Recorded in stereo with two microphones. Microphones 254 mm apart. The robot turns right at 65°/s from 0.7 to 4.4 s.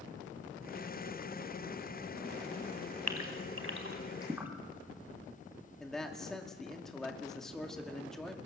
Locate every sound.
3.1 s a gasp: 80° right, 2.5 m; by 4.5 s 10° right (ahead or behind), 2.5 m
5.8 s a man speaking: centre (ahead or behind), 2 m